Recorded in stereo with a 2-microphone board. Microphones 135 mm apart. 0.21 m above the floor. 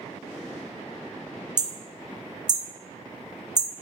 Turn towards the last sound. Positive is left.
turn(degrees=-35)  # may be behind; listen again after turning